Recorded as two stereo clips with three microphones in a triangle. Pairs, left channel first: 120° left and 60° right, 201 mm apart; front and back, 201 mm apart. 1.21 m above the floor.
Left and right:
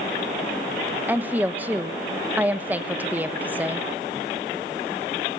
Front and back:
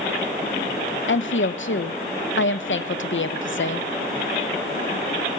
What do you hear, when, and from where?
1.1 s a woman speaking: 20° left, 0.9 m